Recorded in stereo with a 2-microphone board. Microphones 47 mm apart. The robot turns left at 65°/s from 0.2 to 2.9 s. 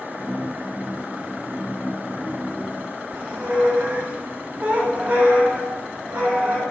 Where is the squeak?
30° right (ahead or behind), 1.2 m.